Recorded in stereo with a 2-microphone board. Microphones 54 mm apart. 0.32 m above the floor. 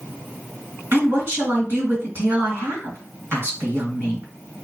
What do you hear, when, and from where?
0.9 s a woman speaking: 45° right (ahead or behind), 2.0 m